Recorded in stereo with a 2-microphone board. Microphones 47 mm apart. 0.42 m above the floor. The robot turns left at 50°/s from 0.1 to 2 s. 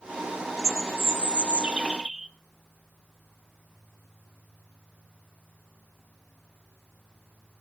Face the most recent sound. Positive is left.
turn(degrees=-175)